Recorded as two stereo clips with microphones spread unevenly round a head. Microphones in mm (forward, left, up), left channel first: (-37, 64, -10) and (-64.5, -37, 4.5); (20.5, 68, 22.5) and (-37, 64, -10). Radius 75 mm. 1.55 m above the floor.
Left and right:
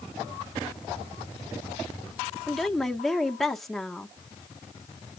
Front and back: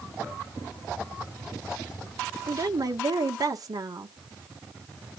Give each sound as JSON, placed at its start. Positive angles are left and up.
{"t": 2.5, "sound": "a woman speaking", "azimuth_deg": 165, "distance_m": 1.7}